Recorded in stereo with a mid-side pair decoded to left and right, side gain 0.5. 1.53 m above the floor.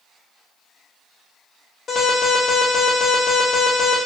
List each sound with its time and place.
1.9 s an alarm: 50° left, 1.4 m